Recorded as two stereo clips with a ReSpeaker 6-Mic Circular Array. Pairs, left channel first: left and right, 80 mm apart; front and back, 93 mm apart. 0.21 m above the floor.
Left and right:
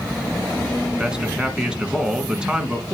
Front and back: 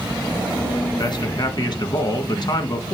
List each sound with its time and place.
1.0 s a man speaking: 10° right, 1.8 m